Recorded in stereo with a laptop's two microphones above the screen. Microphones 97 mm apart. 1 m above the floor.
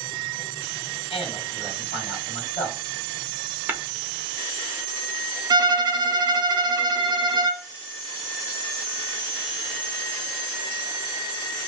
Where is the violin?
45° right (ahead or behind), 0.7 m.